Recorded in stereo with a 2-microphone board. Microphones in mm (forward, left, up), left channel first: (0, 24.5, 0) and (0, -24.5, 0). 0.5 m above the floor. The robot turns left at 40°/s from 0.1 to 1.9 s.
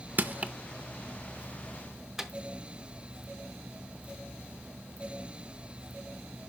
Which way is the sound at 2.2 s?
10° right (ahead or behind).